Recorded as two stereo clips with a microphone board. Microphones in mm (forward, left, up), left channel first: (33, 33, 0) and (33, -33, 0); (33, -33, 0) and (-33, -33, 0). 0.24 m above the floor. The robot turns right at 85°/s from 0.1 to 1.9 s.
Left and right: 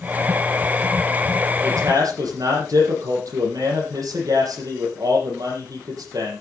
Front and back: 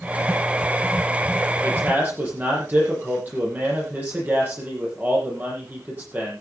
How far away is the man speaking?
About 9 m.